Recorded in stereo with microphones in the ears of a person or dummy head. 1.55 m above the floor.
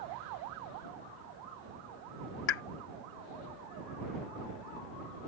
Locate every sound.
2.5 s a pop: 65° left (ahead or behind)